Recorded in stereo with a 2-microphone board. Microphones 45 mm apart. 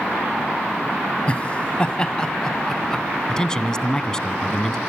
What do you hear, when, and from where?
1.3 s laughter: 25° left (ahead or behind), 1.3 m; by 3.0 s 5° left (ahead or behind), 1.7 m
3.3 s a man speaking: 15° left (ahead or behind), 1.9 m